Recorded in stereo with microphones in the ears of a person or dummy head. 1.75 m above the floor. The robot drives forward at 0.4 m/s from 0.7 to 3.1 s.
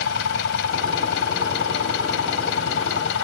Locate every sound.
0.0 s an engine running: 70° left (ahead or behind); by 3.2 s 75° left (ahead or behind)